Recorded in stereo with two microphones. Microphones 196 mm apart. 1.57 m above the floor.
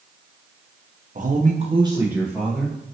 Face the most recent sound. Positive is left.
turn(degrees=5)  # may be behind; listen again after turning